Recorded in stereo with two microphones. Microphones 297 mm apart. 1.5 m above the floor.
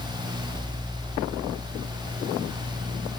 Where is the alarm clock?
No alarm clock in this recording.